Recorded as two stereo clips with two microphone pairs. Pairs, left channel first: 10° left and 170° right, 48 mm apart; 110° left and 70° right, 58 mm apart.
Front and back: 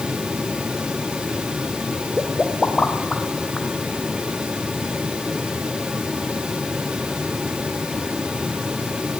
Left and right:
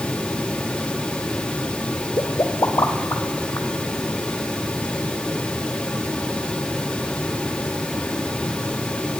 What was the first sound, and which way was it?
A pop, 90° left.